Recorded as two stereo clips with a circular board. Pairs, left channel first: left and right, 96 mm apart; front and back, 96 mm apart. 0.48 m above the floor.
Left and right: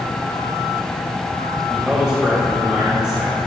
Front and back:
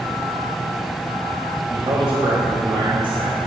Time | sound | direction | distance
1.7 | a man speaking | 170° right | 1.7 m